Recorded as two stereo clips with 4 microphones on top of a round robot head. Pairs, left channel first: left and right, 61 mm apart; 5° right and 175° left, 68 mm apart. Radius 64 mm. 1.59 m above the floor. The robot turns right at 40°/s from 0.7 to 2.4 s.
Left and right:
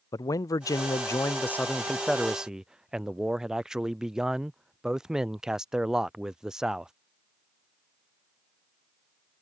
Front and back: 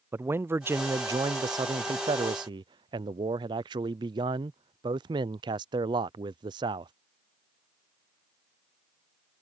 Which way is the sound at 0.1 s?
120° left.